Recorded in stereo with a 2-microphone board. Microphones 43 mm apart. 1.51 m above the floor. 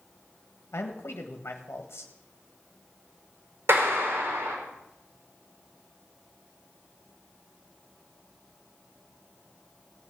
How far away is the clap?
About 4 m.